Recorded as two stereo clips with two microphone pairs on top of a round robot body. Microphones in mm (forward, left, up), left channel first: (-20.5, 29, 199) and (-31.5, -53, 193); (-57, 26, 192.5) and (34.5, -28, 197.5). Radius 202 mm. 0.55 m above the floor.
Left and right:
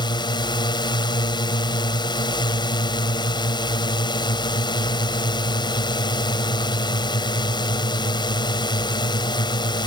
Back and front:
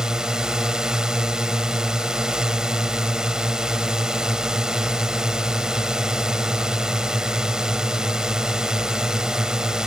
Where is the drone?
55° left.